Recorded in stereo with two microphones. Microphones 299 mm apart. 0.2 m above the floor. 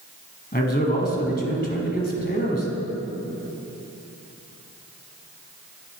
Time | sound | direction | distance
0.5 | a man speaking | 30° left (ahead or behind) | 1.4 m